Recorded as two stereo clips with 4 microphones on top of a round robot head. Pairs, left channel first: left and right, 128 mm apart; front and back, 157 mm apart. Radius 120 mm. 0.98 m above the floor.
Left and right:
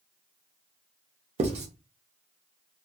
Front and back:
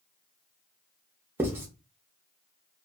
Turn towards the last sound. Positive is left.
turn(degrees=-105)